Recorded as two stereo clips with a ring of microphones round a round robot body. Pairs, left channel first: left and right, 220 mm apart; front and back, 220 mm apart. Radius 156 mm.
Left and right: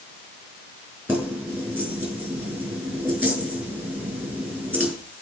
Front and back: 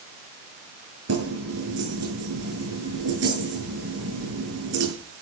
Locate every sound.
1.1 s keys jangling: 175° right, 9 m